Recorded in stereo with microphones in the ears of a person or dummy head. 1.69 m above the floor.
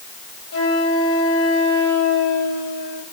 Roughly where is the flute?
Left.